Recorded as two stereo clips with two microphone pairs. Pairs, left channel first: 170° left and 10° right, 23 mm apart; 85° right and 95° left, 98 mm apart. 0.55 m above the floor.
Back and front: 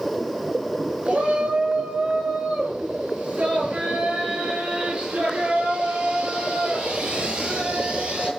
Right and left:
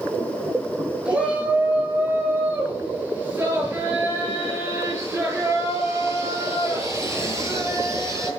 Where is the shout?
20° left, 9 m; by 8.3 s 35° left, 11.5 m.